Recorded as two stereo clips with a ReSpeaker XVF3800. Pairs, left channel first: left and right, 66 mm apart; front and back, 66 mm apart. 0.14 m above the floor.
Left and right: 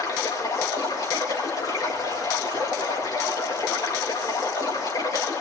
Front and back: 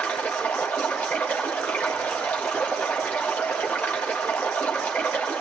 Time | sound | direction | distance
0.0 | running water | 70° left | 8 m